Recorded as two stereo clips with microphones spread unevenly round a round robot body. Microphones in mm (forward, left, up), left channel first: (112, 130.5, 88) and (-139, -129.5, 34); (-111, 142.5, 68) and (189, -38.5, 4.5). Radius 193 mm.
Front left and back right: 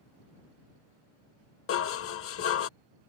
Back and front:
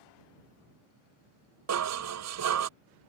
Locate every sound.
1.7 s dishes clattering: 10° right